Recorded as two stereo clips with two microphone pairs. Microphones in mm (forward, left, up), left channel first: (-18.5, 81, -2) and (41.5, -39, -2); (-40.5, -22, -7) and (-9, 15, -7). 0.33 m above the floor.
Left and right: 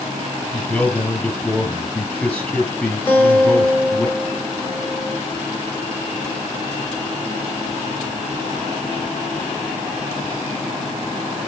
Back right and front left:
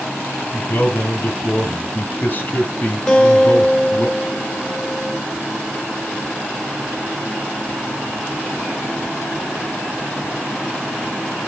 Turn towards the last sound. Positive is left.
turn(degrees=170)